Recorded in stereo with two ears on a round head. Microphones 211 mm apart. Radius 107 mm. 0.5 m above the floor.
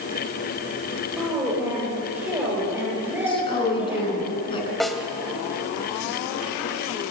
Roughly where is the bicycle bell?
I don't hear a bicycle bell.